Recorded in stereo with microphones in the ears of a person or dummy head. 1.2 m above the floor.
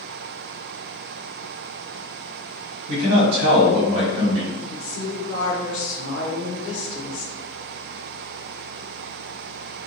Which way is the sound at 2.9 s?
65° right (ahead or behind).